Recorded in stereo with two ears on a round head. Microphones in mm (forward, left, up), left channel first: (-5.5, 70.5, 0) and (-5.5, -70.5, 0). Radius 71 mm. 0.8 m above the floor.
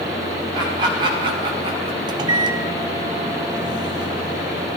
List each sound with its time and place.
0.5 s laughter: 30° right (ahead or behind), 4.5 m; by 2.0 s 40° right (ahead or behind), 3 m
2.1 s a microwave: 25° right (ahead or behind), 0.8 m